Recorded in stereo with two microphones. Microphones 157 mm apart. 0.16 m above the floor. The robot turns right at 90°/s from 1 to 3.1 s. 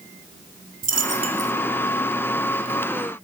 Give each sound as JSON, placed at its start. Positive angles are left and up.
{"t": 0.8, "sound": "a dropped coin", "azimuth_deg": -65, "distance_m": 1.0}